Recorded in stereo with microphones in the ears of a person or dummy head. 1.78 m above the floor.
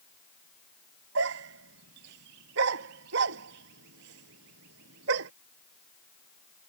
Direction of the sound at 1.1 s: 70° right (ahead or behind).